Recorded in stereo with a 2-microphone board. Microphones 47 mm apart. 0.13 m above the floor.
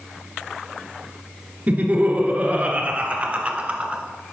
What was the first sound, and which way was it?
Laughter, 35° right (ahead or behind).